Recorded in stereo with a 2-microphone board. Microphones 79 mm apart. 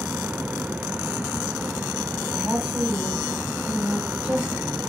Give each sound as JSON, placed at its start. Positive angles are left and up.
{"t": 2.3, "sound": "a woman speaking", "side_deg": -15, "distance_m": 4.0}